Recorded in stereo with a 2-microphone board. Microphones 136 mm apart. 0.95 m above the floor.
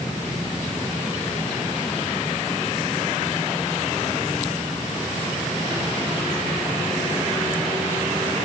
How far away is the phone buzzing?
No phone buzzing in this recording.